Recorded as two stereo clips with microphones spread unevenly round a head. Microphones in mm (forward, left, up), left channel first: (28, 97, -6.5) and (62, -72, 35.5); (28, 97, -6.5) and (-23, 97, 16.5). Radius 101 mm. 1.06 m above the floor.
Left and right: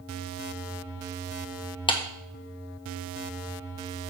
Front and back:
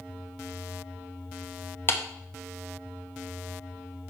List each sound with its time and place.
1.9 s a clap: 40° left, 1.2 m